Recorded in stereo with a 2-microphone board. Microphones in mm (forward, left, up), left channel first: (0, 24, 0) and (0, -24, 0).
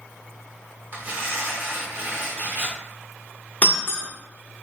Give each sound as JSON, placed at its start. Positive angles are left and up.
{"t": 0.9, "sound": "tearing paper", "side_deg": -40, "distance_m": 0.9}
{"t": 3.6, "sound": "breaking glass", "side_deg": 35, "distance_m": 0.8}